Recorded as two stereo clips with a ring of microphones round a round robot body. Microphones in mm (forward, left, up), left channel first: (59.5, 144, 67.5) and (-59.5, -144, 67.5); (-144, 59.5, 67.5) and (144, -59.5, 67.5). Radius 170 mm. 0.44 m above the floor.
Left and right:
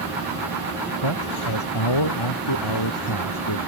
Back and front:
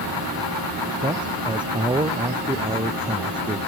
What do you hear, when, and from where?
1.0 s a man speaking: 55° left